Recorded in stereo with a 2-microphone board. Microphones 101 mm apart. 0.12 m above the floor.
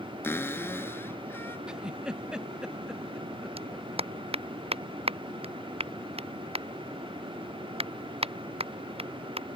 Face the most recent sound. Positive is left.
turn(degrees=-75)  # may be behind; listen again after turning